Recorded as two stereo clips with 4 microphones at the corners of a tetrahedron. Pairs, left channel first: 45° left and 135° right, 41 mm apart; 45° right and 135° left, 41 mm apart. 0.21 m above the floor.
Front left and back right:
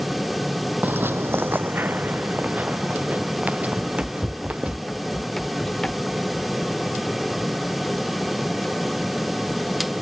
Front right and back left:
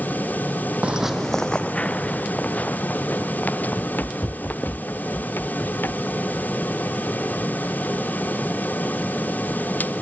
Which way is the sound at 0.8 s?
170° right.